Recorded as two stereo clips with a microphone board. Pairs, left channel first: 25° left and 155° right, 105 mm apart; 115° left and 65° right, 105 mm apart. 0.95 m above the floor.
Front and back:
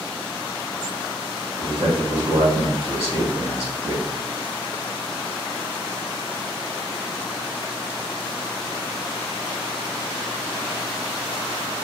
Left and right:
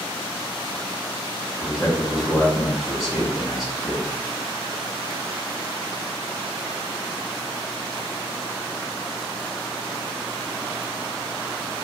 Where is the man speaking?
155° right, 1.9 m.